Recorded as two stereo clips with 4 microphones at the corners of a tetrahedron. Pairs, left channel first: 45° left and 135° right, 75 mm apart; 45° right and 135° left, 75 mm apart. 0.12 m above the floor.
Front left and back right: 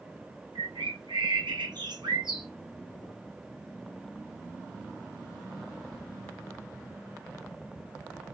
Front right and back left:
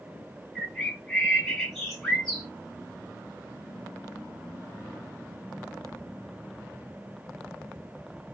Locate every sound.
0.6 s a bird: 130° right, 3 m